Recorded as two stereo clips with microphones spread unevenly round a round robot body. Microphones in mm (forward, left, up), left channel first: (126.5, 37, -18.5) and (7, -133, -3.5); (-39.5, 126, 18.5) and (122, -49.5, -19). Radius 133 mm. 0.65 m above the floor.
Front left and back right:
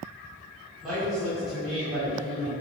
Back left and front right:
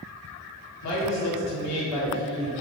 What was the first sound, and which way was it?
A woman speaking, 145° left.